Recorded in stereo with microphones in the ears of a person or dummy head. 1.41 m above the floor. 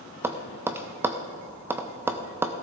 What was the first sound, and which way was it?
Tapping, 10° right (ahead or behind).